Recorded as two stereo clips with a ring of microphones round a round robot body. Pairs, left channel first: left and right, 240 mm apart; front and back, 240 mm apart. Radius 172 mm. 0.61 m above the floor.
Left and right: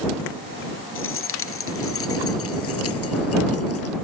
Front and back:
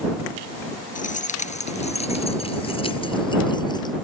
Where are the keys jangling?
55° left; by 4.0 s 75° left.